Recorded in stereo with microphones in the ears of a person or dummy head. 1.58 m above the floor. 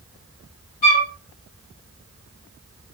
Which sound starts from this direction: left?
A flute, at 0.8 s.